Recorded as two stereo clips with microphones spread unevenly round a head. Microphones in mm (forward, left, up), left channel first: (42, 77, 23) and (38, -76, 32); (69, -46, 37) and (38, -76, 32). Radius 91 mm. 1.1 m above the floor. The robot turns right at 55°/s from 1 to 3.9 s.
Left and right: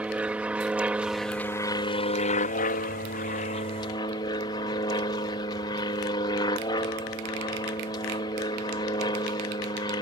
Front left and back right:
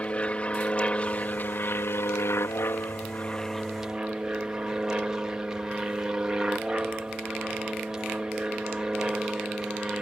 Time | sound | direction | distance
0.0 | an aircraft | 10° right | ?